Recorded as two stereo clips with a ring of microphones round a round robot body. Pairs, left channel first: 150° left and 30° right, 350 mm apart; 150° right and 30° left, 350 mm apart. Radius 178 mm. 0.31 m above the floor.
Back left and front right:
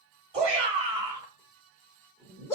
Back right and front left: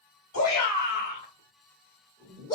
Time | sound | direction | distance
0.3 | a shout | 95° right | 2.0 m